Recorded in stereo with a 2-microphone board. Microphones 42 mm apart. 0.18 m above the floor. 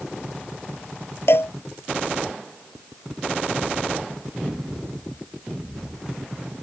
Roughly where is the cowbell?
Left.